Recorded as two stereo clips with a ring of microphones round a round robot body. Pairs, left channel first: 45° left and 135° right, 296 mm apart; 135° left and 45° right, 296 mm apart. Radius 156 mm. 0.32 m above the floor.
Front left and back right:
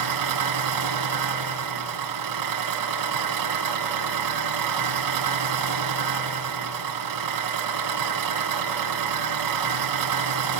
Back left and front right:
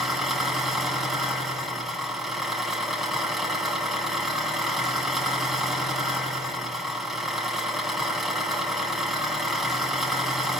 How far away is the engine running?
About 3 m.